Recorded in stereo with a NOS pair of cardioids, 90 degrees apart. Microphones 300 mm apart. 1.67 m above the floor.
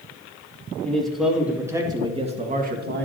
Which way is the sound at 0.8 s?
5° left.